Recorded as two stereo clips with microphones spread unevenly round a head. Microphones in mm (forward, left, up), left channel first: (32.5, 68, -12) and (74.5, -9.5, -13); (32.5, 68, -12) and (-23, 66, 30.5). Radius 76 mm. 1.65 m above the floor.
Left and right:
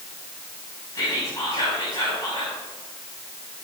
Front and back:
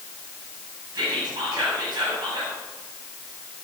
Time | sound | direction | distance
0.9 | whispering | 175° right | 7.5 m